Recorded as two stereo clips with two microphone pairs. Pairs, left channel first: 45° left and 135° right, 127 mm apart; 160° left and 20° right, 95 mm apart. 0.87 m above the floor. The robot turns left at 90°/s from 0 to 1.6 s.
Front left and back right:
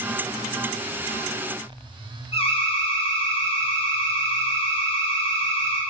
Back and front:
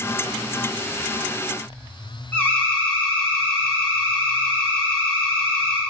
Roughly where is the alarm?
Left.